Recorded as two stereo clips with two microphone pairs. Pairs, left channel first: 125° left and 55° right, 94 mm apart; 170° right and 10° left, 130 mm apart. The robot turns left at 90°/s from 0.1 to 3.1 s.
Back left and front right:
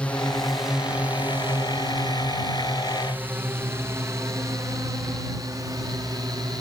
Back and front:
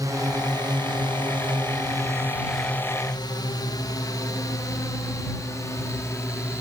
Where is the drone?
55° left; by 6.6 s 100° right.